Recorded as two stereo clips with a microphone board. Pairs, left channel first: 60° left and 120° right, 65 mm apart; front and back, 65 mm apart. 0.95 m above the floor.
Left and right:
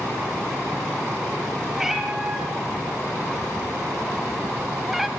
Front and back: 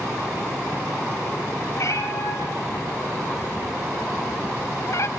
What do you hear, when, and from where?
1.7 s a cat meowing: 35° right, 6.5 m